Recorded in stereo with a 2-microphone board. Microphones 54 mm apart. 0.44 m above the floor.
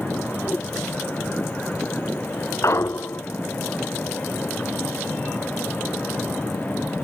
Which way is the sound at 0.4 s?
30° left (ahead or behind).